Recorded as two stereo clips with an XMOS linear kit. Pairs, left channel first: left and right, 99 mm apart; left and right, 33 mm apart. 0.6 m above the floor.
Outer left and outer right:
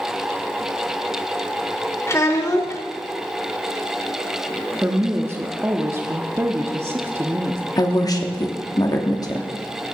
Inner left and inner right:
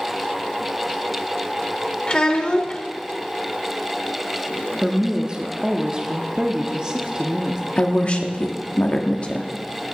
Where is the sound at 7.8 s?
40° left (ahead or behind), 0.9 m.